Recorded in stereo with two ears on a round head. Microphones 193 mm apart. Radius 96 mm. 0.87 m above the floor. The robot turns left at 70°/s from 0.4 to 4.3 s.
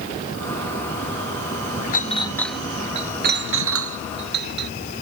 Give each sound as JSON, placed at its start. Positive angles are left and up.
{"t": 1.9, "sound": "a clink", "side_deg": 40}